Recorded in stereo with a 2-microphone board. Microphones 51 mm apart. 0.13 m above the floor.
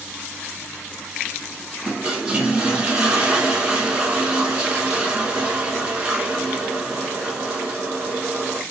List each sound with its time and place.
1.9 s a toilet flushing: 20° right (ahead or behind), 1.2 m